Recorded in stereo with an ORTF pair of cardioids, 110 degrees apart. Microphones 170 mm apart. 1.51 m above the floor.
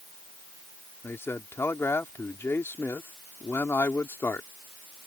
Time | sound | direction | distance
1.0 | a man speaking | 15° left | ?